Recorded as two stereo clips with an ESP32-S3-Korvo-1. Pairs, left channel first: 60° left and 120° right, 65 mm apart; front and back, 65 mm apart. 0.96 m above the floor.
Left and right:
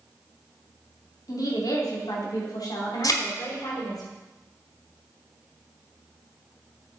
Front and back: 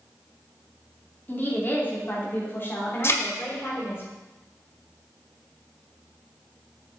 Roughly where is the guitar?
I don't hear a guitar.